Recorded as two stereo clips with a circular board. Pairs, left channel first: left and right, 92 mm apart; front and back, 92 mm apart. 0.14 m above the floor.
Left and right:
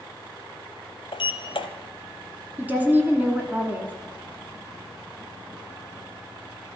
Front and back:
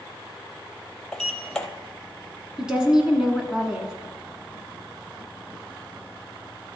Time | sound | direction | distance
1.1 | a sliding door | 80° left | 0.7 m
2.6 | a woman speaking | 115° right | 1.0 m